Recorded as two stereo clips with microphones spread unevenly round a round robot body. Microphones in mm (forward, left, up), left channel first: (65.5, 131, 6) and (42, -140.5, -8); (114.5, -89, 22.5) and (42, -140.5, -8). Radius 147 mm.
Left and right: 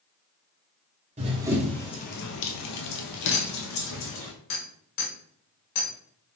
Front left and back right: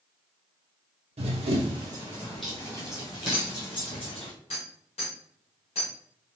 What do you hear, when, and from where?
1.2 s running footsteps: 160° right, 0.9 m; by 4.3 s 70° left, 2 m
3.3 s a clink: 85° left, 2 m